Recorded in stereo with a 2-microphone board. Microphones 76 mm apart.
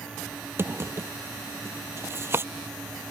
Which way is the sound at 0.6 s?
30° right (ahead or behind).